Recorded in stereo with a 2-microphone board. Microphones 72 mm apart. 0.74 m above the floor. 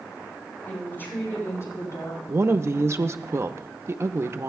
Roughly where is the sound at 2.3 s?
Right.